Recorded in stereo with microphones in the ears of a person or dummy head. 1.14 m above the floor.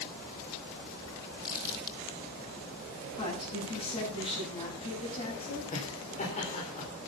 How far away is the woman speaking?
About 9 m.